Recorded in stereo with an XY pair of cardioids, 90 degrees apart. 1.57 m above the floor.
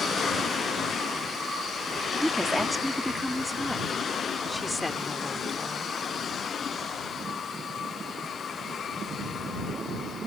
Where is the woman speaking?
10° right; by 5.9 s 20° left.